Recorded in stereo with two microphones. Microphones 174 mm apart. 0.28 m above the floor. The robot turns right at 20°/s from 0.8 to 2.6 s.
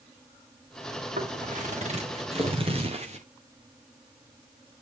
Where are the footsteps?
50° right (ahead or behind), 4 m; by 3.2 s 40° right (ahead or behind), 3 m.